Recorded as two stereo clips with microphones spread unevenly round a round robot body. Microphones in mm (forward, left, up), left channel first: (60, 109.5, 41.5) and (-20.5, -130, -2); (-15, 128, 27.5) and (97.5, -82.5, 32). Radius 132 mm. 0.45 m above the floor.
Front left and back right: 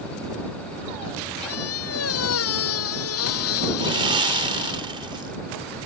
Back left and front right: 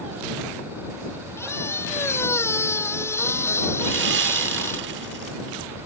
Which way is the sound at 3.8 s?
55° right.